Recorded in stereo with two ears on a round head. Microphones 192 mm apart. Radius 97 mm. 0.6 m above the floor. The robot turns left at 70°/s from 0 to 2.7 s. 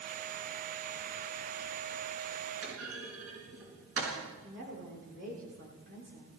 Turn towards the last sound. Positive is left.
turn(degrees=-55)  # may be behind; listen again after turning